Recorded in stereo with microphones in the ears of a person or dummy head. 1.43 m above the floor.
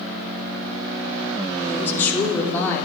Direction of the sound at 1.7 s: 10° left (ahead or behind).